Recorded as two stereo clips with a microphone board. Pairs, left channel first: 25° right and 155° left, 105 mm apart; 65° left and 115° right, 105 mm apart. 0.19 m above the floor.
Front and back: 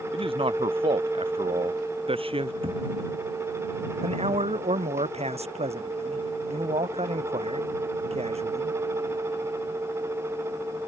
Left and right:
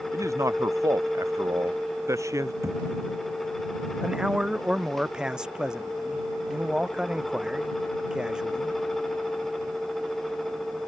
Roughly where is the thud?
Behind.